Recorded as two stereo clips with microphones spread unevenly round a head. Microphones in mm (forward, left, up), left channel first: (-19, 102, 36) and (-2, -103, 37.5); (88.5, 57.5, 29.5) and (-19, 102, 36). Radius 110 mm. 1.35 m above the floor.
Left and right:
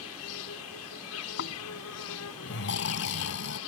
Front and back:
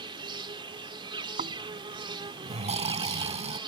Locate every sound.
0.0 s an insect: 110° left
1.4 s snoring: 130° left